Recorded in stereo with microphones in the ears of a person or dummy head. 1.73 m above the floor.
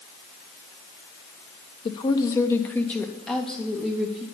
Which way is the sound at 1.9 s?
25° left (ahead or behind).